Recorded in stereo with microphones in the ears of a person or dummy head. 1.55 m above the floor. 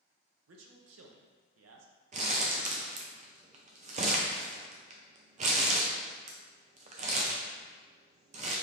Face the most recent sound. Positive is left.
turn(degrees=-40)  # may be behind; listen again after turning